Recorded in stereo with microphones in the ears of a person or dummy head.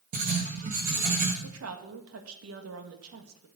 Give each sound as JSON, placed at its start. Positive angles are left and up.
{"t": 0.1, "sound": "writing", "side_deg": -50, "distance_m": 1.7}
{"t": 1.4, "sound": "a woman speaking", "side_deg": -75, "distance_m": 1.5}